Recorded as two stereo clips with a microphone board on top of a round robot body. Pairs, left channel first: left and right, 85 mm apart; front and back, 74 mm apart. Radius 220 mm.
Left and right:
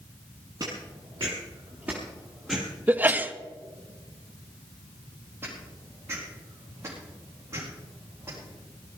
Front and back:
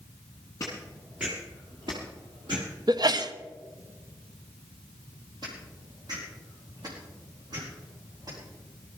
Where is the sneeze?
160° right, 1.1 m.